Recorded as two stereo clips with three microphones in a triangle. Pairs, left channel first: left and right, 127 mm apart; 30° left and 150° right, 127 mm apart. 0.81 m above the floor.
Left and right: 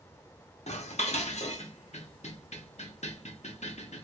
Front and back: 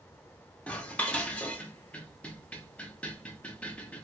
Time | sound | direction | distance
0.7 | dishes clattering | 110° left | 0.6 m